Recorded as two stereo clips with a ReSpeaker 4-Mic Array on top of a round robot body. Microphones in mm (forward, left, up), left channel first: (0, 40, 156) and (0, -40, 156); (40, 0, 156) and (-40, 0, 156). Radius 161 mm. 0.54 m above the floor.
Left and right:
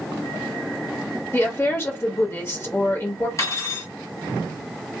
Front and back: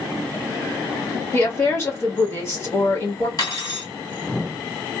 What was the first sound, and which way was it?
A woman speaking, 45° left.